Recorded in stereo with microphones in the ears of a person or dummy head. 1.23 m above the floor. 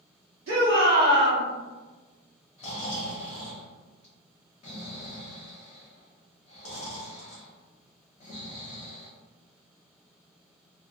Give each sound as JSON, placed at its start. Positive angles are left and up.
{"t": 0.5, "sound": "a shout", "side_deg": -65, "distance_m": 1.1}
{"t": 2.6, "sound": "snoring", "side_deg": 25, "distance_m": 0.7}